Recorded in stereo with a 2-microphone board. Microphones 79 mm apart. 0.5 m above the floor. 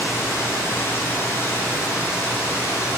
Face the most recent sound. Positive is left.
turn(degrees=30)  # may be behind; listen again after turning